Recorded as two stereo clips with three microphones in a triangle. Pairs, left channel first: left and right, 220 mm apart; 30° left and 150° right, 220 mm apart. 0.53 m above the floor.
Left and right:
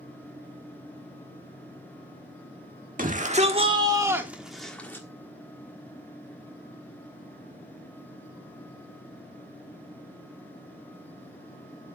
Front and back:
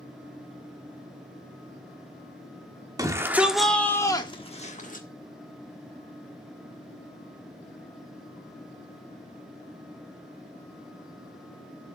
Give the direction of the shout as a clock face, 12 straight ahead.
3 o'clock.